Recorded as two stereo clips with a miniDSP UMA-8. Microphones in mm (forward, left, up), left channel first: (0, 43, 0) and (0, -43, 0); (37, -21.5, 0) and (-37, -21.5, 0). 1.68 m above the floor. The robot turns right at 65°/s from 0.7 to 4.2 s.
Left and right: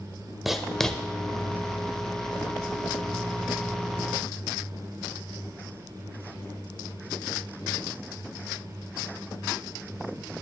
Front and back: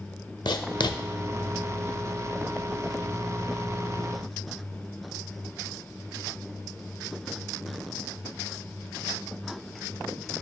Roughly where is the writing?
Ahead.